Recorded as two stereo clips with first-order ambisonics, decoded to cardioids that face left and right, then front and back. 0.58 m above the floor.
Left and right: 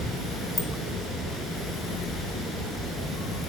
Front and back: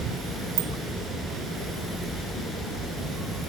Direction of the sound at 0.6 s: 170° left.